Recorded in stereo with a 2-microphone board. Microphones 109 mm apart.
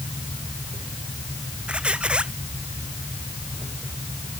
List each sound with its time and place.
1.7 s a squeak: 10° right (ahead or behind)